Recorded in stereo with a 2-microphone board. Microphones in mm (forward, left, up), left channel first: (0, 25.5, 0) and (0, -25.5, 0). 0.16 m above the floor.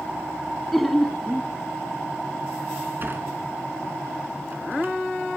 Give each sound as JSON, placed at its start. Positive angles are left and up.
{"t": 0.7, "sound": "laughter", "side_deg": 0, "distance_m": 1.1}
{"t": 3.0, "sound": "a sliding door", "side_deg": -45, "distance_m": 1.8}